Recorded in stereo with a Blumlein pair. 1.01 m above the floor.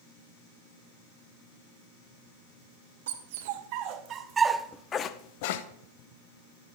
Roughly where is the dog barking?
Ahead right.